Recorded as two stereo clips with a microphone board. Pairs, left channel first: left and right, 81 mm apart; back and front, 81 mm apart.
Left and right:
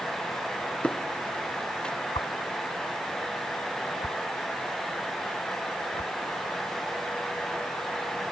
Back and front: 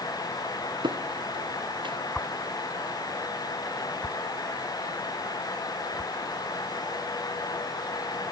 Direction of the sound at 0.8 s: 10° left.